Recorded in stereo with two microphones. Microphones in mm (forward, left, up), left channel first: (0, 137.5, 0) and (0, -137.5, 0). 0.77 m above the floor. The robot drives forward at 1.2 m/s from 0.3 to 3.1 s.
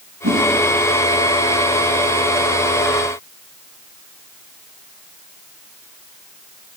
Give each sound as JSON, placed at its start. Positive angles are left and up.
{"t": 0.2, "sound": "a whoosh", "side_deg": -70, "distance_m": 3.0}